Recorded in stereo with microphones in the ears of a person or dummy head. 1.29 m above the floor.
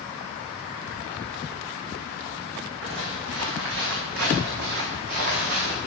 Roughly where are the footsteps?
Right.